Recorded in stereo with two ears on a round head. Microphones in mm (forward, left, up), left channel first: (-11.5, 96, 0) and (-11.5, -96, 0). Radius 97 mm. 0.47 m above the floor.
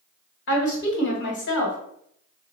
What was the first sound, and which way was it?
A woman speaking, 60° left (ahead or behind).